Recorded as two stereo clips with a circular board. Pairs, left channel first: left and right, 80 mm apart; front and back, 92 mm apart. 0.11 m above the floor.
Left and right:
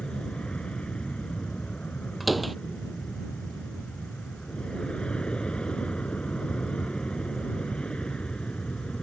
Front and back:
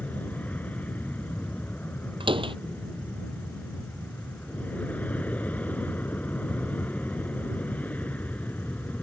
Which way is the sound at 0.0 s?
35° left.